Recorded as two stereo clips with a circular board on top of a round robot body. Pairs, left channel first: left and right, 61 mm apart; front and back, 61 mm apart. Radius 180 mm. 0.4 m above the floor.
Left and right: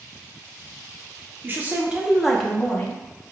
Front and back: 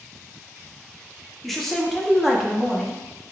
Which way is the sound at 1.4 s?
85° right.